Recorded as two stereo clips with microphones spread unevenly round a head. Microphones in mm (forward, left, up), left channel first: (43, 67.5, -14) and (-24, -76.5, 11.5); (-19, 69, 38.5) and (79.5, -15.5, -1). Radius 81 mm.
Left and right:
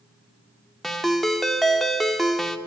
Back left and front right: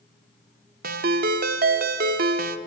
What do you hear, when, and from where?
0.8 s a ringtone: 30° right, 1.1 m